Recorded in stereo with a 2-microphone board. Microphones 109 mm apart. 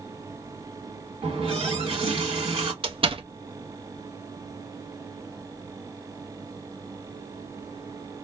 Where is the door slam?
50° right (ahead or behind), 0.6 m.